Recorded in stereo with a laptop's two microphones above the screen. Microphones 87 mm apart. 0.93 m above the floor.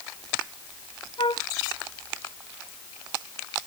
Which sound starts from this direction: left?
A flute, at 1.2 s.